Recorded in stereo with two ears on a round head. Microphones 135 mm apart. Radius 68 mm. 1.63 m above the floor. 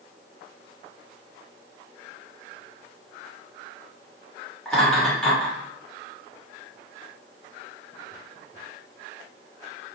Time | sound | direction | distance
4.7 | laughter | 5° left (ahead or behind) | 1.6 m